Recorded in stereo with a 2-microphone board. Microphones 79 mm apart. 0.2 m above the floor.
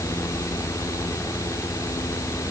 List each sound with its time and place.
Only background noise.